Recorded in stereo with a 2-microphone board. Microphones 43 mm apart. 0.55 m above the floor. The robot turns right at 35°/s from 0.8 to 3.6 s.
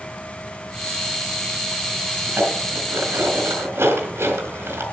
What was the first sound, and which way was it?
Dishes clattering, 50° right (ahead or behind).